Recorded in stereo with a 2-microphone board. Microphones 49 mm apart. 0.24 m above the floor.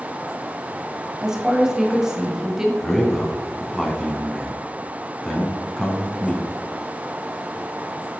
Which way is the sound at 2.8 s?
5° left (ahead or behind).